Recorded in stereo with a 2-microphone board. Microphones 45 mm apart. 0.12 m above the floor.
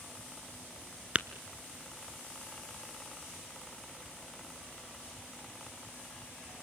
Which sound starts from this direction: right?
Tapping, at 1.1 s.